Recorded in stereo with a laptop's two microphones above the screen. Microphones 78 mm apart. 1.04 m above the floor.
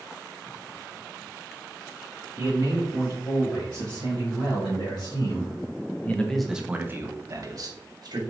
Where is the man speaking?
80° left, 2 m; by 8.2 s 55° right (ahead or behind), 1.1 m.